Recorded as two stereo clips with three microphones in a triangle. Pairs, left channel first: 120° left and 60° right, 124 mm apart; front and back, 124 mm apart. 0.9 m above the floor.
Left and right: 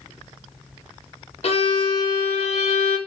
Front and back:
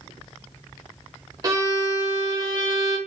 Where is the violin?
130° left, 0.9 m.